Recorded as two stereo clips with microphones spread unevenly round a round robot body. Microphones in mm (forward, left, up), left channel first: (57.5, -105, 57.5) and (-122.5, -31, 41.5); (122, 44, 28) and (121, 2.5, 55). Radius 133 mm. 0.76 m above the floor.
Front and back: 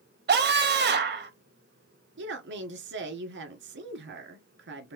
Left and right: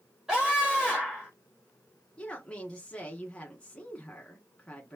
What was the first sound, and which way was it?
A scream, 160° left.